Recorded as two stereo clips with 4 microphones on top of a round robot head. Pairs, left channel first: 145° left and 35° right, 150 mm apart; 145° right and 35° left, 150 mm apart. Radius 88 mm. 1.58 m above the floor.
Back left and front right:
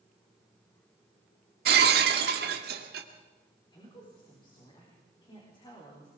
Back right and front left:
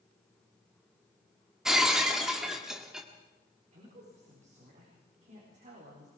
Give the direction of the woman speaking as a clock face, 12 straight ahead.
9 o'clock.